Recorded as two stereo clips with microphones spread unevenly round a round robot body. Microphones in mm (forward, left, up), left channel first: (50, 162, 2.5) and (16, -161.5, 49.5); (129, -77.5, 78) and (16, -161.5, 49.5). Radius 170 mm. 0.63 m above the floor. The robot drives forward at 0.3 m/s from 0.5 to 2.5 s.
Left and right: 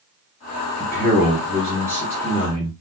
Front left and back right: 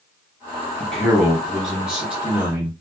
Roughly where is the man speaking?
Behind left.